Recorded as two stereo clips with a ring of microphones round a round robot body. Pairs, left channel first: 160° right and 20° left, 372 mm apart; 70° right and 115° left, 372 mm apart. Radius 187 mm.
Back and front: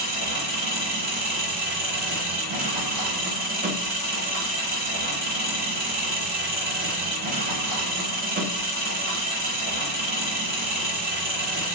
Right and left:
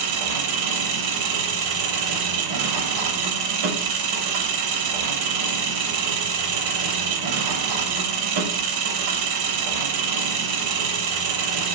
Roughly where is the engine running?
Left.